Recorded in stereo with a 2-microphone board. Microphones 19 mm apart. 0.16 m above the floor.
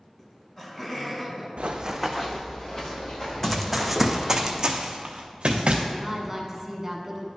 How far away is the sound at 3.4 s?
About 0.7 m.